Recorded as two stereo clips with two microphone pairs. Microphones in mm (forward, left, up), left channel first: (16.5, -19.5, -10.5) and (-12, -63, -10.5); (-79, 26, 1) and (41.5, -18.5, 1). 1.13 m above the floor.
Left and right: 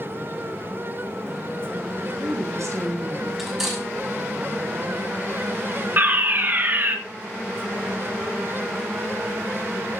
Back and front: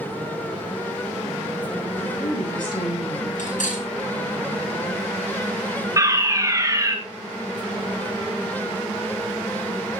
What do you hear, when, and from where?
2.0 s a woman speaking: 145° right, 6.5 m
3.4 s cutlery clinking: 155° left, 6 m
6.0 s a fire alarm: 80° right, 2 m